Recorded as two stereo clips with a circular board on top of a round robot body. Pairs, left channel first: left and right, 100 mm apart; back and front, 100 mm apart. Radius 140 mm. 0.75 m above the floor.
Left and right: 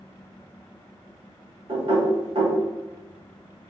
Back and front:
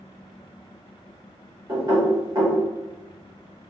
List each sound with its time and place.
1.7 s knocking: 55° right, 1.9 m